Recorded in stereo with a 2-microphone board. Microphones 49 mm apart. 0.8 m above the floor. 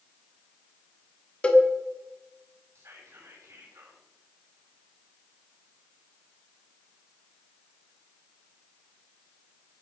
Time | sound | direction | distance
1.4 | a cowbell | 25° left (ahead or behind) | 2.0 m
2.8 | whispering | 70° right (ahead or behind) | 6 m